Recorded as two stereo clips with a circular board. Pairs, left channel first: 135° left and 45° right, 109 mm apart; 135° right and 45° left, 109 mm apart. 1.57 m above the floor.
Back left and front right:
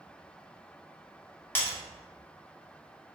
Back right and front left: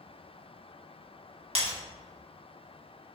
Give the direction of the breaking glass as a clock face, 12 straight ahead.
10 o'clock.